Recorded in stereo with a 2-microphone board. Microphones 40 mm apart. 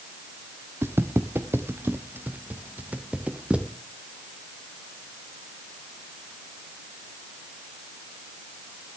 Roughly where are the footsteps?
Right.